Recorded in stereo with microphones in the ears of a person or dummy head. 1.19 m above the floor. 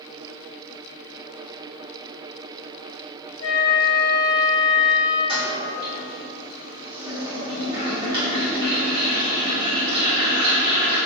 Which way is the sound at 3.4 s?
65° left (ahead or behind).